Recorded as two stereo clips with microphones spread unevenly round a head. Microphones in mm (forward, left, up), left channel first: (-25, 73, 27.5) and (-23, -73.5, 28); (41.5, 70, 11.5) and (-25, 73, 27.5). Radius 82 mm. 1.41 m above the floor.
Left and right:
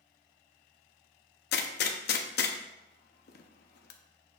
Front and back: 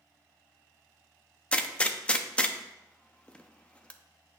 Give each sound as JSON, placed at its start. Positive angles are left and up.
{"t": 1.5, "sound": "a gunshot", "azimuth_deg": 70, "distance_m": 0.7}